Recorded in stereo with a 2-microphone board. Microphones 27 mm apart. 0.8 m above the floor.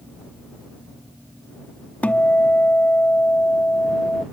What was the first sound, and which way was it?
A guitar, 65° left (ahead or behind).